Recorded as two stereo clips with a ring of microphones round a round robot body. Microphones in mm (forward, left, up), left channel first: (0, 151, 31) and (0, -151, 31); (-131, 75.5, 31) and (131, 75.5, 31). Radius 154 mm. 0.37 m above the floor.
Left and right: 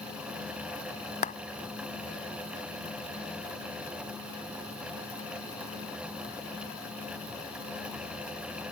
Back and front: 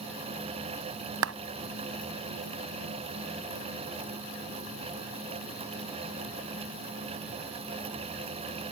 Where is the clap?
25° left.